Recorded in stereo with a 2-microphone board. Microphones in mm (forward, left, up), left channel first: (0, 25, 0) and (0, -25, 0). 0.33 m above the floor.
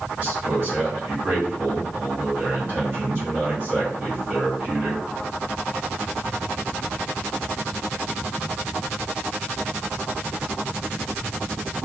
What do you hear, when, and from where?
0.2 s a man speaking: 35° right (ahead or behind), 1.9 m